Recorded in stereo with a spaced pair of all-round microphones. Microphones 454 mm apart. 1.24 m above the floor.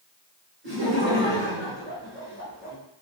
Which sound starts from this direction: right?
Laughter, at 0.6 s.